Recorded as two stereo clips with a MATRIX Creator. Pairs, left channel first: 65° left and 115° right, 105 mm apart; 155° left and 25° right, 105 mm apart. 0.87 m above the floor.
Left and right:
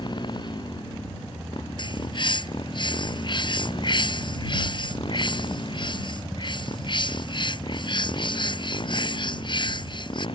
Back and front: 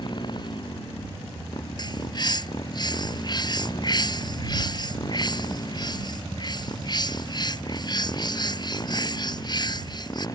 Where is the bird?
110° left.